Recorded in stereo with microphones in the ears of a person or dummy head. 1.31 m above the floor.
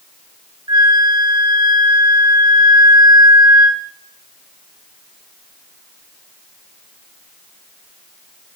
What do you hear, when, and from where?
0.7 s a flute: 15° right (ahead or behind), 0.7 m